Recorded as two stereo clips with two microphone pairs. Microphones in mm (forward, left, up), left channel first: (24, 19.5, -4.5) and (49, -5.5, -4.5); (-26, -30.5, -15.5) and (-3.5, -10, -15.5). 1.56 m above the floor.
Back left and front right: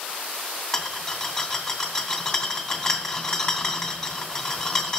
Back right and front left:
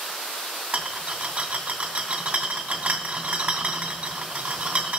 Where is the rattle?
75° left, 2 m.